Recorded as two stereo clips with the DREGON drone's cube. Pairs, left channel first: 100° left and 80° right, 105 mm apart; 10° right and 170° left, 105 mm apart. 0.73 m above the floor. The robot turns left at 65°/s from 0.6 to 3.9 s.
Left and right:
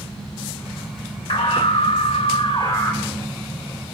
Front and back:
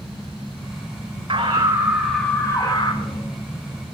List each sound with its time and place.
1.3 s a scream: 130° left, 9 m; by 3.3 s straight ahead, 9 m